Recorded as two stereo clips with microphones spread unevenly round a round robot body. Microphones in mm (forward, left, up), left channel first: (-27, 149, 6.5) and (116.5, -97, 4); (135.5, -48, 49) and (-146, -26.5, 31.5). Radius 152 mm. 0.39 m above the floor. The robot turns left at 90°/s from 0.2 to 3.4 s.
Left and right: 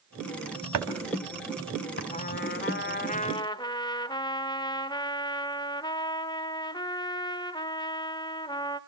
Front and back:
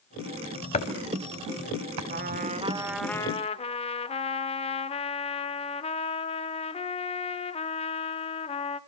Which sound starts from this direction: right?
Chopping, at 0.7 s.